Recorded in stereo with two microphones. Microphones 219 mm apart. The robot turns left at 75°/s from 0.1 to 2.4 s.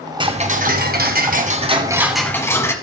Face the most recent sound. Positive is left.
turn(degrees=165)